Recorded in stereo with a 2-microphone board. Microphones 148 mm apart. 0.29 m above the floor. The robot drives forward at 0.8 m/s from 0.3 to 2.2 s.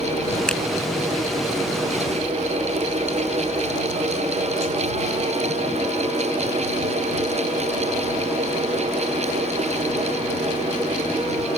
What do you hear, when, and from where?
0.5 s a finger snap: 5° left (ahead or behind)